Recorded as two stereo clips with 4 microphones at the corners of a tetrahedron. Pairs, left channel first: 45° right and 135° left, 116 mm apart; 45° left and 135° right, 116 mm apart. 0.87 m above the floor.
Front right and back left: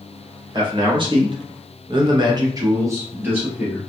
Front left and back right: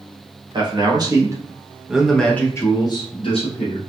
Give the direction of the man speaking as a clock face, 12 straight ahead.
6 o'clock.